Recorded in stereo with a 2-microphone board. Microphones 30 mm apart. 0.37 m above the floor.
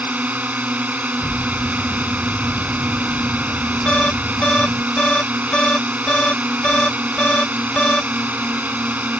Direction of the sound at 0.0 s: 70° right (ahead or behind).